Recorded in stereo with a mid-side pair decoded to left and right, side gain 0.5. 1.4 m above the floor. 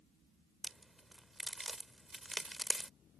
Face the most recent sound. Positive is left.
turn(degrees=-10)